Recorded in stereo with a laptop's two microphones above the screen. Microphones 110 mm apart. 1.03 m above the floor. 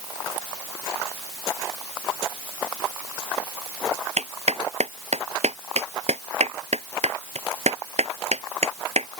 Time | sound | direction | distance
4.2 | a clap | 90° right | ?